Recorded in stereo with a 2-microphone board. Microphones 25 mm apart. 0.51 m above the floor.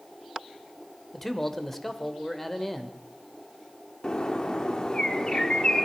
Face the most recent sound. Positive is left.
turn(degrees=35)  # may be behind; listen again after turning